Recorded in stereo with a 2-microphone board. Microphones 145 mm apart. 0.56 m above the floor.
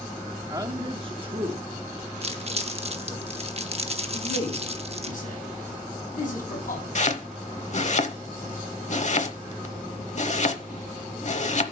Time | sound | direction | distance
0.5 | a man speaking | 25° right (ahead or behind) | 1.0 m
2.2 | crumpling | 45° right (ahead or behind) | 0.8 m
4.1 | a man speaking | 65° left (ahead or behind) | 5 m
7.0 | chopping | 55° left (ahead or behind) | 0.8 m